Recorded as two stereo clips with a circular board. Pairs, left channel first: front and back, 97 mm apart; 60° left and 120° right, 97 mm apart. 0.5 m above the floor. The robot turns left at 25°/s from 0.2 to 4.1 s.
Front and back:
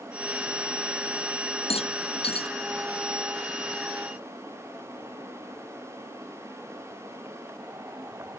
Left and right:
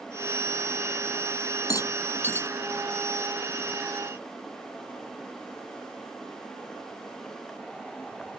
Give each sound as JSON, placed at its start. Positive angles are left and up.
{"t": 1.7, "sound": "a rattle", "azimuth_deg": 5}